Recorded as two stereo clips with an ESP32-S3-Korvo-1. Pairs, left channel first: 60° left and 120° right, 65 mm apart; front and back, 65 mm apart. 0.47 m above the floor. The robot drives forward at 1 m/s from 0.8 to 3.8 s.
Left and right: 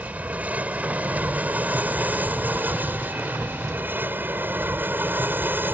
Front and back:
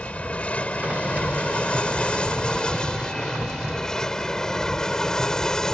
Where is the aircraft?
65° right; by 5.8 s 80° right.